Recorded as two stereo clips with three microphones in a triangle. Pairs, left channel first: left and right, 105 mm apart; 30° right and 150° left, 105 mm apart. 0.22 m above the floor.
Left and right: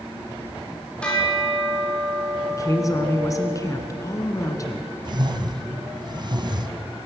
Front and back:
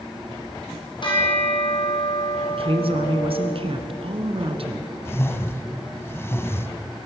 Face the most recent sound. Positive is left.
turn(degrees=-85)